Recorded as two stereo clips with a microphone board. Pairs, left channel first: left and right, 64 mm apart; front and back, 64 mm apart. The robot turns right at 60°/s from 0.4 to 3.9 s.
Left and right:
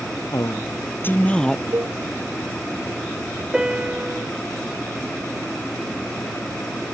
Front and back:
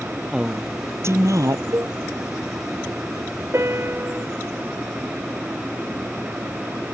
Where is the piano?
170° right; by 4.3 s 145° right.